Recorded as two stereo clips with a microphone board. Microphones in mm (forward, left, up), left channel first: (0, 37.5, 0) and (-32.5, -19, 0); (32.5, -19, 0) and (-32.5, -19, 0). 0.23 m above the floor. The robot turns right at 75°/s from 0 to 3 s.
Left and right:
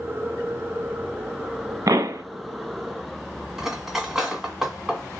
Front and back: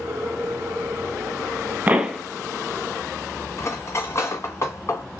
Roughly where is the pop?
Behind right.